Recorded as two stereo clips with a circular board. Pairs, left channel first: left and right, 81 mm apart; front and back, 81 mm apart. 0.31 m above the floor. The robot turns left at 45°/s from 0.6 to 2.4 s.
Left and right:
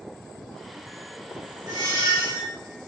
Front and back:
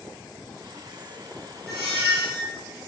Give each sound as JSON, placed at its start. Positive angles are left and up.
{"t": 1.7, "sound": "a squeak", "azimuth_deg": 130, "distance_m": 1.9}